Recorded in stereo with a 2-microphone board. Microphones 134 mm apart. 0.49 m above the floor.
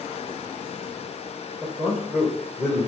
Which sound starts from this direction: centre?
A man speaking, at 1.6 s.